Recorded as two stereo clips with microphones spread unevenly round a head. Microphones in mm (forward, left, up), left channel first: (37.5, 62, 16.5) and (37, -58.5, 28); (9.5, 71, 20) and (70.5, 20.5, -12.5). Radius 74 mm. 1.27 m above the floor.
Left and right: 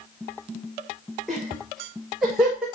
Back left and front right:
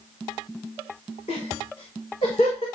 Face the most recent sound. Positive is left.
turn(degrees=-175)